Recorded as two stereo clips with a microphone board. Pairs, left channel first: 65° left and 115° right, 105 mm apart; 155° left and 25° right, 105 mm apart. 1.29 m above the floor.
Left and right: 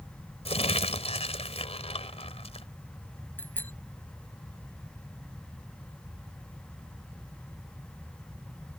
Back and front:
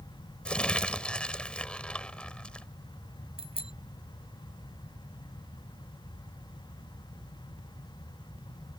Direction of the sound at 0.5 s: 75° left.